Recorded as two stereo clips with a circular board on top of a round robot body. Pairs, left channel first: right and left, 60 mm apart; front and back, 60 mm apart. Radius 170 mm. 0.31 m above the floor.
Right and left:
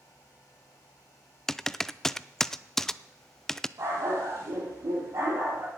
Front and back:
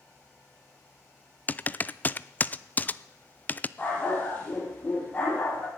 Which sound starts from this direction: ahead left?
A dog barking, at 3.8 s.